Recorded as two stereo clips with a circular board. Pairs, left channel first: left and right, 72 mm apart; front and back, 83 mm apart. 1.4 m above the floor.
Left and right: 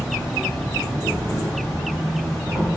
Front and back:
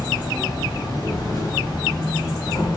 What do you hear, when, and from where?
0.0 s an insect: 5° left, 1.5 m